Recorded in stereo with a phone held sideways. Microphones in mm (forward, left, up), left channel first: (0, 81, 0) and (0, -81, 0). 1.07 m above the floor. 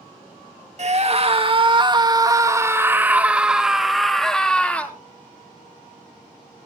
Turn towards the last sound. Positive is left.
turn(degrees=10)  # may be behind; listen again after turning